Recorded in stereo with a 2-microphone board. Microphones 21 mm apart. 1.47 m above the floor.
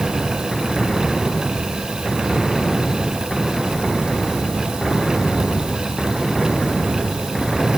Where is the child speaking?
No child speaking in this recording.